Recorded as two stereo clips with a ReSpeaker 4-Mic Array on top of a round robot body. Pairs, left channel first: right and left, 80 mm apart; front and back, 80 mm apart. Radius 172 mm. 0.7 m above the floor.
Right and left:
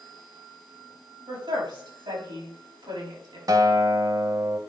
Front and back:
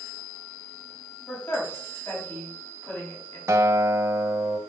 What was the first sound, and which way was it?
A woman speaking, 65° left.